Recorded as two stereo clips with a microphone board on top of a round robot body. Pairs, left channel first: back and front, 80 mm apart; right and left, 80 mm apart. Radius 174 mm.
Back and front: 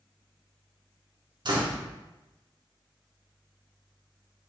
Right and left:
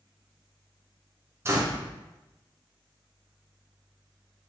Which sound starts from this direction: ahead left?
A door slam, at 1.4 s.